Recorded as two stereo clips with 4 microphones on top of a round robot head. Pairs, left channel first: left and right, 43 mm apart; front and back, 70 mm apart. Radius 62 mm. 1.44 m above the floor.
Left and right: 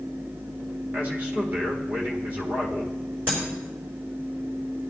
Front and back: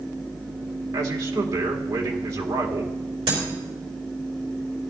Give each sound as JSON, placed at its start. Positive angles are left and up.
{"t": 0.9, "sound": "a man speaking", "azimuth_deg": -145, "distance_m": 1.8}
{"t": 3.3, "sound": "breaking glass", "azimuth_deg": -155, "distance_m": 4.0}